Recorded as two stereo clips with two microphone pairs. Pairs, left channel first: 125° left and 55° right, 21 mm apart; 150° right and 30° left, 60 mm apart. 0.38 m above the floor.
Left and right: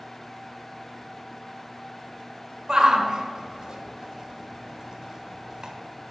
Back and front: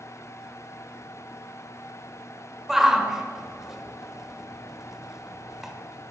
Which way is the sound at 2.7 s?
50° right.